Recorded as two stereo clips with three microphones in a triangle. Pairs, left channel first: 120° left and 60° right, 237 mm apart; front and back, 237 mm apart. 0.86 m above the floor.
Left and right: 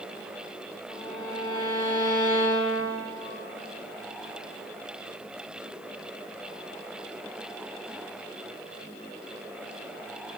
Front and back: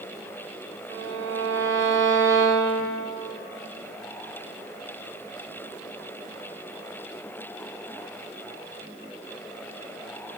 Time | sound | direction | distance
0.9 | a violin | 175° right | 1.2 m